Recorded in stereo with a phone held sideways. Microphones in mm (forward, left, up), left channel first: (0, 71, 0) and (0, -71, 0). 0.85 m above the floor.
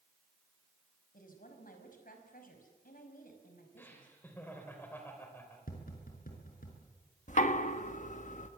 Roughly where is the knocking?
Left.